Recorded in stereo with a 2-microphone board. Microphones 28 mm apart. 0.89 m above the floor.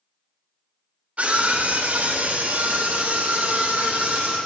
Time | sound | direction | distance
1.2 | a scream | 65° right (ahead or behind) | 3.5 m